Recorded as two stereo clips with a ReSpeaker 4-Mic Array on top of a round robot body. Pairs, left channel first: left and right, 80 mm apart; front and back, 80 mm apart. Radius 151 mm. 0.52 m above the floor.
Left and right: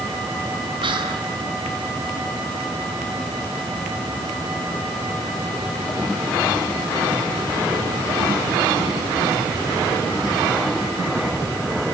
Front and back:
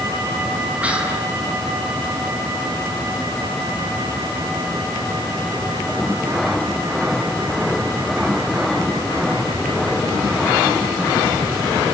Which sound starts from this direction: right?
Whispering, at 0.8 s.